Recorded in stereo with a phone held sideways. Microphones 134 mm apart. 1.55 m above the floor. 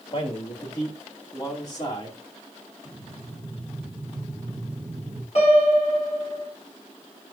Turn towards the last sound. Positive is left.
turn(degrees=50)  # may be behind; listen again after turning